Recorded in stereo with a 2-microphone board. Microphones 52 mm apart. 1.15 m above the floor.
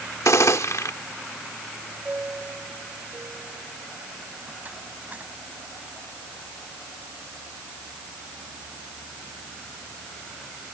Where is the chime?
35° right (ahead or behind).